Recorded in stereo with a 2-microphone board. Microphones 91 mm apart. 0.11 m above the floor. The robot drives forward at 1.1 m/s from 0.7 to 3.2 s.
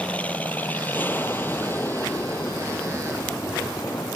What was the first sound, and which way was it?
An aircraft, 15° left (ahead or behind).